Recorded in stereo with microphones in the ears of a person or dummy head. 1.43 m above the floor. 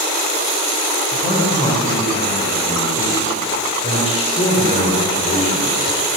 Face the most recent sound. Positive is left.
turn(degrees=40)  # may be behind; listen again after turning